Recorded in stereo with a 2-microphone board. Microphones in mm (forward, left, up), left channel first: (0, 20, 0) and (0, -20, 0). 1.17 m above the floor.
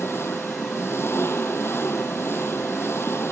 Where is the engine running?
90° left.